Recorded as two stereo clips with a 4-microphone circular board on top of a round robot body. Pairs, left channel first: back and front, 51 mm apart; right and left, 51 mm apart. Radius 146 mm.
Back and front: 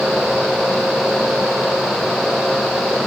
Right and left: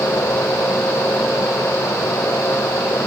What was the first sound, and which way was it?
Only background noise.